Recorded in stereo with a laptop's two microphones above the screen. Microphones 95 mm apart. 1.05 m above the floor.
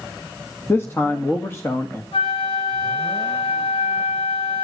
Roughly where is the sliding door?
I don't hear a sliding door.